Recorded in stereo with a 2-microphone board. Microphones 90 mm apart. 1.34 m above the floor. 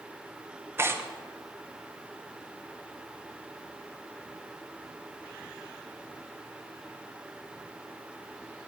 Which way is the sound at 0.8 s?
25° right (ahead or behind).